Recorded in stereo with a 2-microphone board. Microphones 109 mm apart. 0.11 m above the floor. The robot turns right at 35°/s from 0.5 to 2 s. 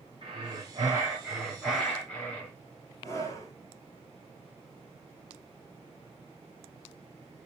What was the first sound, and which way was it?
Breathing, 40° right.